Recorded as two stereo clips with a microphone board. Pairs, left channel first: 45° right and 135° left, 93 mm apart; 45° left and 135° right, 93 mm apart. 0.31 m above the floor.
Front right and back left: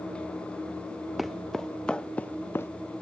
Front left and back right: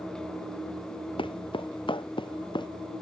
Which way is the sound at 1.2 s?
45° left.